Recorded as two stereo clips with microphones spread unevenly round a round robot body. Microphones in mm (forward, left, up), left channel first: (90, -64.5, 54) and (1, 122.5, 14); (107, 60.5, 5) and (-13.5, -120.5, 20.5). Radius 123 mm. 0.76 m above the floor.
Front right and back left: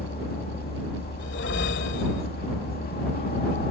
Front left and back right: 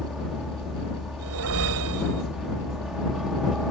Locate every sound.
0.0 s a helicopter: 35° right
1.2 s a whoosh: 110° right